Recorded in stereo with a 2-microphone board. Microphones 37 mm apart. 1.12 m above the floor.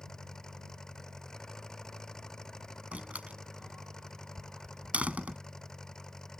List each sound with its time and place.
0.0 s an engine running: 15° left (ahead or behind)
2.9 s a door slam: 40° right (ahead or behind)